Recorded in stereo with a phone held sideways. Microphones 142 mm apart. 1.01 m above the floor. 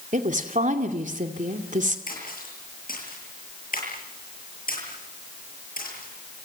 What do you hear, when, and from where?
0.1 s a woman speaking: 60° right (ahead or behind), 2.5 m
2.1 s a splash: 80° left, 8.5 m